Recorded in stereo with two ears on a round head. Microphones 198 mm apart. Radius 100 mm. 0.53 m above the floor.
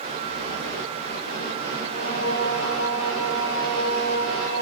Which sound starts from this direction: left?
Singing, at 1.8 s.